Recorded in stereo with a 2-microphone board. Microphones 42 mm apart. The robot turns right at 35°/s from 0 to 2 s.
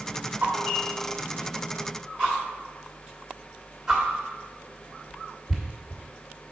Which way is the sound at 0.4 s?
35° right (ahead or behind).